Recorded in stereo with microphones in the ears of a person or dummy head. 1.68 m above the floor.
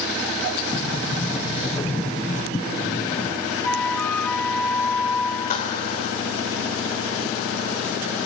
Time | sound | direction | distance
0.7 | a sliding door | 15° left (ahead or behind) | 0.8 m
3.6 | a flute | 5° left (ahead or behind) | 1.1 m
5.5 | a clap | 45° left (ahead or behind) | 4.5 m